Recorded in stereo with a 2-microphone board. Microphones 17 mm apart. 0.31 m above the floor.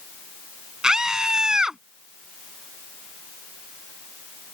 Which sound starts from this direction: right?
A scream, at 0.8 s.